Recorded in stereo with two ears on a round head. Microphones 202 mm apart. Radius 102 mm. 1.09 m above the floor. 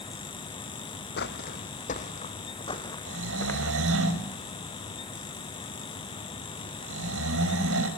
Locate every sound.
1.2 s footsteps: 45° left (ahead or behind), 1.9 m; by 3.8 s 10° left (ahead or behind), 3 m
3.1 s snoring: 60° right (ahead or behind), 5 m